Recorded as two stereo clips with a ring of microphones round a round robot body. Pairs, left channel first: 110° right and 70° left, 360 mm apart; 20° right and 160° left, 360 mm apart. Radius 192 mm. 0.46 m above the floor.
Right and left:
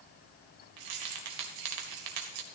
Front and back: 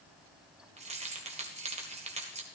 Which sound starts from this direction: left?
Keys jangling, at 0.8 s.